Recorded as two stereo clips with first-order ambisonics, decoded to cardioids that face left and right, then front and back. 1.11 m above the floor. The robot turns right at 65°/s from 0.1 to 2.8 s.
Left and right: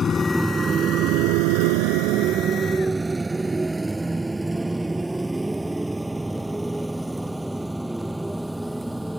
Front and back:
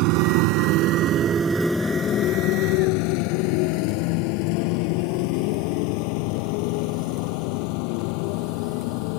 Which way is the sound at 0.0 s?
160° left.